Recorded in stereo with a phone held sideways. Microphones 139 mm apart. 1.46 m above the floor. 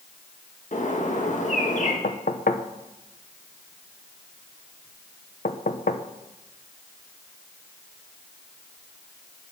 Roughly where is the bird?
Left.